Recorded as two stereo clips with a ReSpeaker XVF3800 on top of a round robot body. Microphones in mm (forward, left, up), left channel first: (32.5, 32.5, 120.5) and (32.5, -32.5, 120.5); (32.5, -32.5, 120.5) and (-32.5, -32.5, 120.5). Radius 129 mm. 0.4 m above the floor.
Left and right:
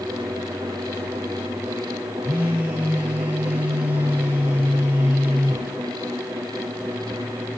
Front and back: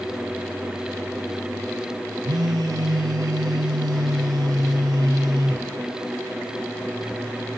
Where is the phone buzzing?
160° right, 0.8 m.